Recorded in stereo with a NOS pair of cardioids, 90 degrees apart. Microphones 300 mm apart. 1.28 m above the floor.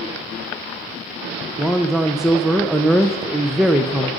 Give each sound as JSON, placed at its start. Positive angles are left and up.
{"t": 1.6, "sound": "a man speaking", "azimuth_deg": 0, "distance_m": 0.8}